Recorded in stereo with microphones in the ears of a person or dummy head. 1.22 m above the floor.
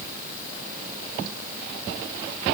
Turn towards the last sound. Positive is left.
No sound to turn to.